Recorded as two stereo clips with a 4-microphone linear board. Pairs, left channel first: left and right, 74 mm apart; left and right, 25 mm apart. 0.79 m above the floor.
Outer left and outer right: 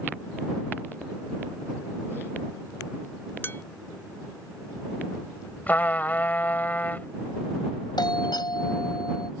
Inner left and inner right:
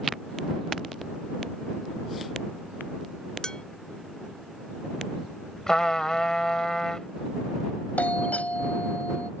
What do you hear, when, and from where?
3.4 s dishes clattering: 30° left (ahead or behind)
5.7 s a trumpet: 25° left (ahead or behind)
8.0 s a doorbell: 80° left